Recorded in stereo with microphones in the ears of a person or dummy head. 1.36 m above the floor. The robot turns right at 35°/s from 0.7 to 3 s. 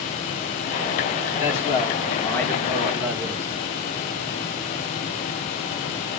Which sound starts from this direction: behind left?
A man speaking, at 1.4 s.